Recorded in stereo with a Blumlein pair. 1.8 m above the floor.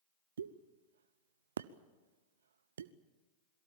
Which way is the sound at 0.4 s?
65° right.